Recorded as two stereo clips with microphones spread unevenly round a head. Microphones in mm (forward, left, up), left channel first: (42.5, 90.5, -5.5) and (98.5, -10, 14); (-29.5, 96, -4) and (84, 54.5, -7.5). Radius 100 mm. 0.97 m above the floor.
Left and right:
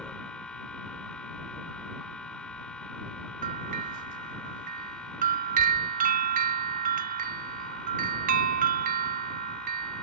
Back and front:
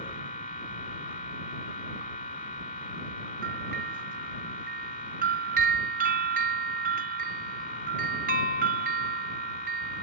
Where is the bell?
70° right.